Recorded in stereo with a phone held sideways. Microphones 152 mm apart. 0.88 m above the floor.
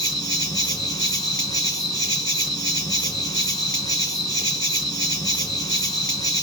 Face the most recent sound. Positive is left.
turn(degrees=25)  # may be behind; listen again after turning